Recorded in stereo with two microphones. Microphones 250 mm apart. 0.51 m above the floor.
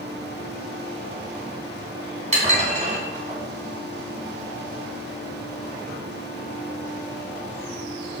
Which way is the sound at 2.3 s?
30° right (ahead or behind).